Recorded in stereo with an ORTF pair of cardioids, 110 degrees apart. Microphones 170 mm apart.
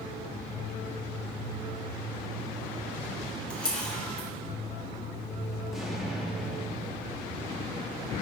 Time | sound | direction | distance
3.5 | a camera shutter | 5° left | 3 m
5.7 | an explosion | straight ahead | 2.5 m